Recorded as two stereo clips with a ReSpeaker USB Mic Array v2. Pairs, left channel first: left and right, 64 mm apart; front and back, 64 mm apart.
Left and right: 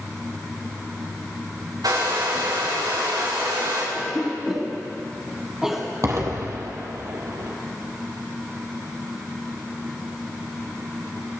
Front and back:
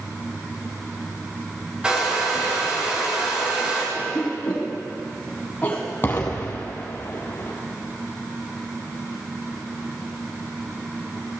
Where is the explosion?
55° right, 1.8 m.